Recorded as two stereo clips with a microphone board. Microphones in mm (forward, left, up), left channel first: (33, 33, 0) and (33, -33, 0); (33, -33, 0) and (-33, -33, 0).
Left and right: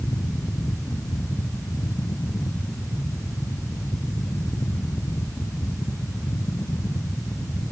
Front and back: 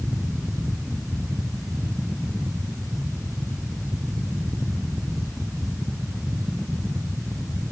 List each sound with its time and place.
Only background noise.